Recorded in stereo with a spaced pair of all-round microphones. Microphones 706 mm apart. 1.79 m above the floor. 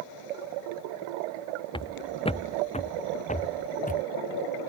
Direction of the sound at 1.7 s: 5° left (ahead or behind).